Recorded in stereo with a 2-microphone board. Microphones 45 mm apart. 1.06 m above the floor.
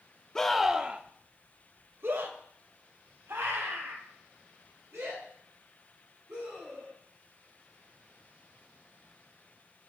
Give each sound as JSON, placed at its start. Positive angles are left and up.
{"t": 0.3, "sound": "a scream", "side_deg": 15, "distance_m": 1.0}